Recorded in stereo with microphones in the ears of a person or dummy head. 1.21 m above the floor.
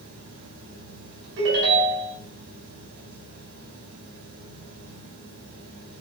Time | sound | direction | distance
0.0 | a fan | 85° right | 5 m
1.4 | a ringtone | 75° right (ahead or behind) | 4 m